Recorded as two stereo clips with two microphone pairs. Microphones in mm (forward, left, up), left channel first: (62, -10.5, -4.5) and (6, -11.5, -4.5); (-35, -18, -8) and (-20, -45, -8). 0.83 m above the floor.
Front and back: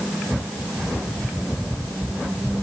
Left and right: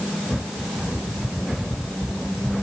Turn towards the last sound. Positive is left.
No sound to turn to.